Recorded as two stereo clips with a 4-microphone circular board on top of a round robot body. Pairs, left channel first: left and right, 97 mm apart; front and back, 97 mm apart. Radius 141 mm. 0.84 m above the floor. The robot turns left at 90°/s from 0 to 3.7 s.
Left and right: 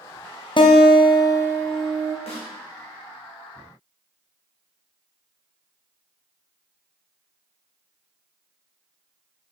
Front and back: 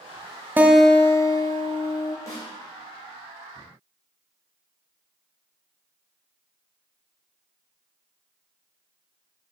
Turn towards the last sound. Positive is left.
turn(degrees=-70)